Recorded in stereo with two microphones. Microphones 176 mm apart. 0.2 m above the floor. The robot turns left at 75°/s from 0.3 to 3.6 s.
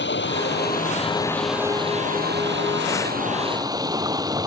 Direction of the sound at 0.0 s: 90° left.